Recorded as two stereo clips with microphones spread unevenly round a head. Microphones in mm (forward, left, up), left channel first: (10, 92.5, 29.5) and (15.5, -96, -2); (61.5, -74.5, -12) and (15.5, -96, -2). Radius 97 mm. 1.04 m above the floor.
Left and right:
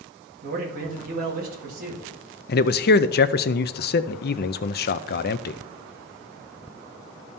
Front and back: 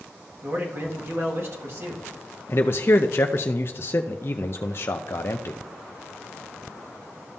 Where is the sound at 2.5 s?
55° left, 0.5 m.